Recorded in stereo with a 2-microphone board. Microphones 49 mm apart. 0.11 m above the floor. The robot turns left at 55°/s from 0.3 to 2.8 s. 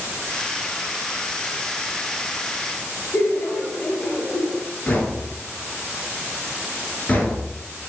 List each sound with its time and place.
3.1 s laughter: 30° left (ahead or behind), 1.8 m
4.9 s knocking: 25° left (ahead or behind), 1.6 m